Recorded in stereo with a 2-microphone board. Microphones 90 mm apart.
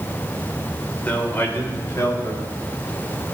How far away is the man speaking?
About 1.7 m.